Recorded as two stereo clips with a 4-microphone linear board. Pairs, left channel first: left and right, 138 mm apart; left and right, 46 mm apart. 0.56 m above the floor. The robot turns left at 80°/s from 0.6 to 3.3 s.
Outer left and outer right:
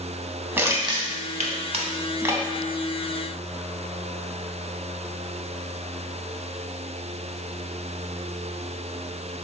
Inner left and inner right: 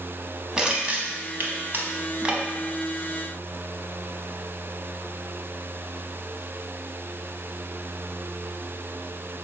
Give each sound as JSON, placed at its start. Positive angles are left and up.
{"t": 0.6, "sound": "crushing", "side_deg": -15, "distance_m": 0.5}